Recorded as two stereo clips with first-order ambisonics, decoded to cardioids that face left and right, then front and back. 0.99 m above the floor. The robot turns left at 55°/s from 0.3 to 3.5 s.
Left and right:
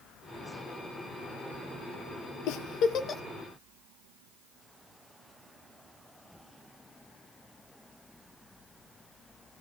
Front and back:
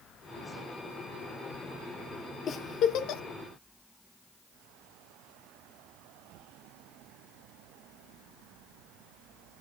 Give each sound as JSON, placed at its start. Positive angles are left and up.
{"t": 2.5, "sound": "a giggle", "azimuth_deg": 65, "distance_m": 0.7}